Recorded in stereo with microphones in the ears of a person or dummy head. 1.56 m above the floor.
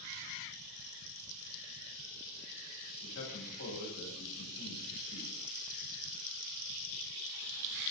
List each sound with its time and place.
3.0 s a man speaking: 75° left (ahead or behind), 8.5 m